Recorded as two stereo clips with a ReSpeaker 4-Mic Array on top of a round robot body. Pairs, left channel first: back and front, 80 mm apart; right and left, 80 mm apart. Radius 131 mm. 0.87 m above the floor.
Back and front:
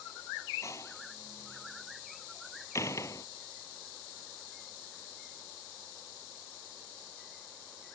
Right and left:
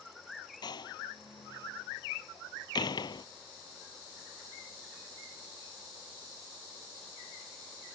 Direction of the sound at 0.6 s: 125° right.